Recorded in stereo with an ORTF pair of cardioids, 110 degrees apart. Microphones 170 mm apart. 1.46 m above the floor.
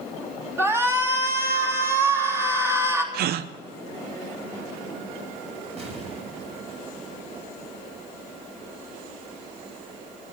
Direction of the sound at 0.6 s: 15° right.